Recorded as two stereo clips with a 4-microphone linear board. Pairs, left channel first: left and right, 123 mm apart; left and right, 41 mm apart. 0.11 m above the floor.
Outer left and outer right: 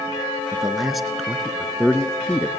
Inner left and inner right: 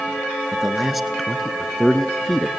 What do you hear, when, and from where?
0.5 s a man speaking: 5° right (ahead or behind), 1.8 m; by 2.5 s 10° left (ahead or behind), 1.8 m